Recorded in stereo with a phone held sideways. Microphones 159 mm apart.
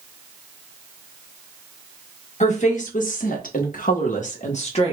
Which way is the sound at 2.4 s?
50° left (ahead or behind).